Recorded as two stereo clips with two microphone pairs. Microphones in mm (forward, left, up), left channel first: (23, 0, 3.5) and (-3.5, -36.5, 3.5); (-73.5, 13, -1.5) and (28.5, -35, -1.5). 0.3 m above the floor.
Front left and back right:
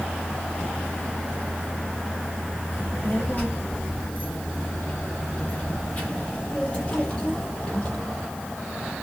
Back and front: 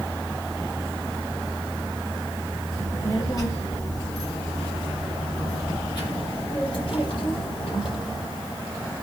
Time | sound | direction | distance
2.7 | a child speaking | 100° left | 5.5 m